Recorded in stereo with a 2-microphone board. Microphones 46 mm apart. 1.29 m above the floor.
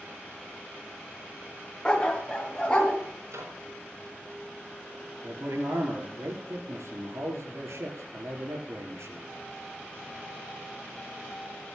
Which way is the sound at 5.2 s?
80° right.